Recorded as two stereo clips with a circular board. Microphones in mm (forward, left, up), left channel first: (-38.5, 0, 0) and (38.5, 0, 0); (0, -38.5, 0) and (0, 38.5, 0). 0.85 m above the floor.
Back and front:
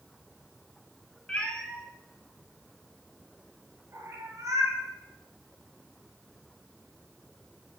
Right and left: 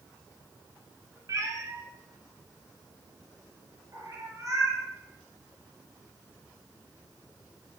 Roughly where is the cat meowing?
Left.